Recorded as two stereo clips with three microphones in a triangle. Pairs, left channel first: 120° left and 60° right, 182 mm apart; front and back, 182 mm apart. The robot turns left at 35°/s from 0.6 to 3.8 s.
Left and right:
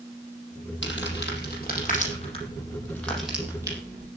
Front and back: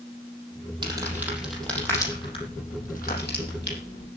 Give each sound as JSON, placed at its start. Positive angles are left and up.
{"t": 0.8, "sound": "crumpling", "azimuth_deg": 115, "distance_m": 6.0}